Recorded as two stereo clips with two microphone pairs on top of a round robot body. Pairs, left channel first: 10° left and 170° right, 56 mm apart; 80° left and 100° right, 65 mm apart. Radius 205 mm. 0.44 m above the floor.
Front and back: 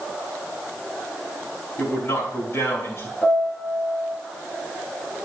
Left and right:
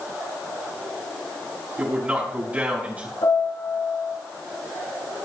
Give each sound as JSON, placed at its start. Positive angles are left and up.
{"t": 1.8, "sound": "a man speaking", "azimuth_deg": -40, "distance_m": 5.5}
{"t": 3.2, "sound": "a piano", "azimuth_deg": 70, "distance_m": 8.5}